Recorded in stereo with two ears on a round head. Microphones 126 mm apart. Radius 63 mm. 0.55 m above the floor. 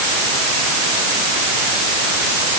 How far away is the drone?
No drone in this recording.